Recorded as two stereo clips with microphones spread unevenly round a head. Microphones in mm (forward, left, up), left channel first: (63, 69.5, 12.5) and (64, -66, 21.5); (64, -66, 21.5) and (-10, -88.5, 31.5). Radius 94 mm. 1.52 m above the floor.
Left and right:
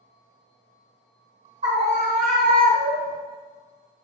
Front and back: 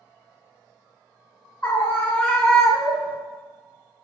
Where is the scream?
50° right, 1.3 m; by 3.2 s 95° right, 0.6 m.